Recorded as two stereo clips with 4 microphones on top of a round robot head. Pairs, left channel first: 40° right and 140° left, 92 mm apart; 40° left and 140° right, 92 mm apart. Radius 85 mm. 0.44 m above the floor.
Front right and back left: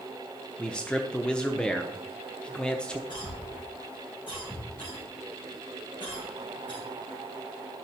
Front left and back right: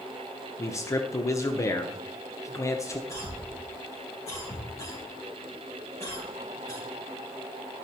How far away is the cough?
About 4 m.